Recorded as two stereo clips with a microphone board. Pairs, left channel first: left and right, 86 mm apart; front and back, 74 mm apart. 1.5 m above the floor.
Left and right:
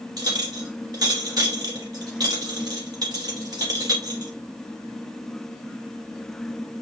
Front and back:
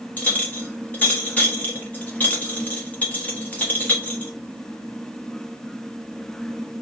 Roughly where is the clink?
Ahead right.